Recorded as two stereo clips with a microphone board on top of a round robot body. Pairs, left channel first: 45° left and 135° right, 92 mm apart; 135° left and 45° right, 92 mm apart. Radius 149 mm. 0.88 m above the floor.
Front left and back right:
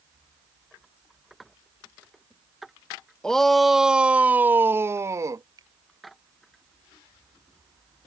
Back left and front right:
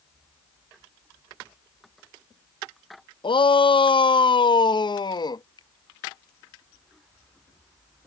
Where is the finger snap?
175° left.